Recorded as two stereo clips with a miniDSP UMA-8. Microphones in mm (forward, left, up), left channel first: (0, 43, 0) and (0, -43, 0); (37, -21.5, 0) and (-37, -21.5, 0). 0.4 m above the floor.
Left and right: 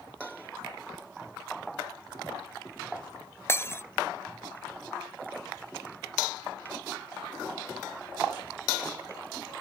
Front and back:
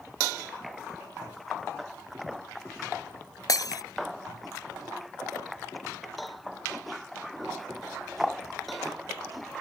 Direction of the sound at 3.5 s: 30° left.